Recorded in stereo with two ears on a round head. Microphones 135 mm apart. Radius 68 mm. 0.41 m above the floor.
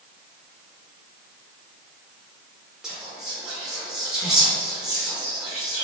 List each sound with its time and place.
2.8 s whispering: 5° right (ahead or behind), 1.0 m